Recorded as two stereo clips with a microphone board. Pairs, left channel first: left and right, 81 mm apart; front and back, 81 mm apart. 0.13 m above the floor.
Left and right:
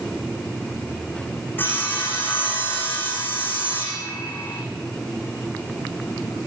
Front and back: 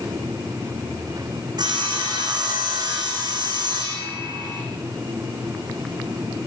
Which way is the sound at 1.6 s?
155° left.